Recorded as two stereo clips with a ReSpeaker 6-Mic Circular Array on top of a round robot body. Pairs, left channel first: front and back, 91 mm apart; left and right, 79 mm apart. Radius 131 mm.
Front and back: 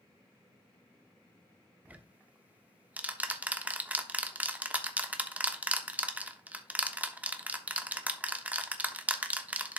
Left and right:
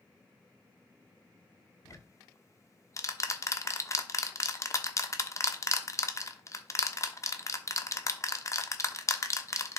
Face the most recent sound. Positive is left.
turn(degrees=115)